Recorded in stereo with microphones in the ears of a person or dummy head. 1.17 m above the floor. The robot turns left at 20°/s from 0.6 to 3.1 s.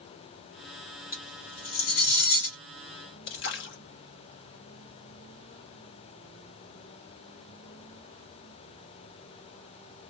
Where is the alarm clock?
No alarm clock in this recording.